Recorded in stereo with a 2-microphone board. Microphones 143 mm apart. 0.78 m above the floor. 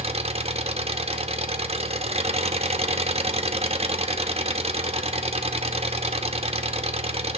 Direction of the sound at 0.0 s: 45° right (ahead or behind).